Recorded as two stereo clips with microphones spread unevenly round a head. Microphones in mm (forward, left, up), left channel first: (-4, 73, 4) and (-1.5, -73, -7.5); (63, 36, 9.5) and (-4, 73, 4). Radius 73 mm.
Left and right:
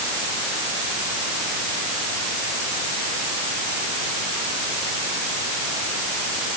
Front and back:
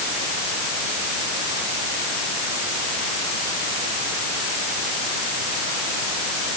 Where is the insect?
No insect in this recording.